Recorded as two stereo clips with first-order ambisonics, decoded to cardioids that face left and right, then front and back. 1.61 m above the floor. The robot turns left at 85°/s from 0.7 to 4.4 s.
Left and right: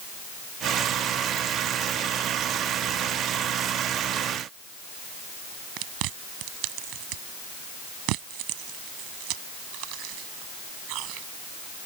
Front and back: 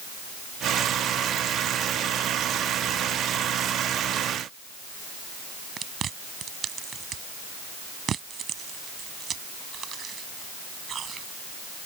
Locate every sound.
5.8 s chewing: 115° right